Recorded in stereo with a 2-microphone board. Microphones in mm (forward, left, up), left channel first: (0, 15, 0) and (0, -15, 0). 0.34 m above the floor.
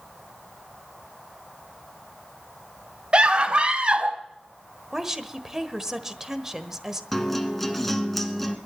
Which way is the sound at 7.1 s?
Centre (ahead or behind).